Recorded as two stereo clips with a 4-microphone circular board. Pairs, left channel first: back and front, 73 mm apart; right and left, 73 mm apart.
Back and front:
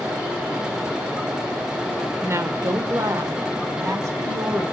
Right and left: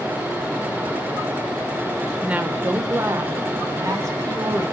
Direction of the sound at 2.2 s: 25° left.